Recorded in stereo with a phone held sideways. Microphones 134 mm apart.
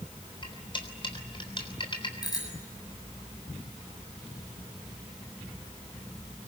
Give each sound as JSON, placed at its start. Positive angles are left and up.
{"t": 0.4, "sound": "cutlery clinking", "side_deg": 40, "distance_m": 3.5}
{"t": 2.2, "sound": "a bicycle bell", "side_deg": 30, "distance_m": 8.0}